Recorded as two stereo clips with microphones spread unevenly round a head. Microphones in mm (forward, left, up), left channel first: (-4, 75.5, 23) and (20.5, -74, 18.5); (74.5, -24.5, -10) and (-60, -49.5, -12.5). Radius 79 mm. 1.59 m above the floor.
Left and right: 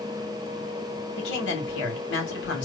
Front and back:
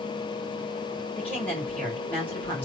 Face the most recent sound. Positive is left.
turn(degrees=90)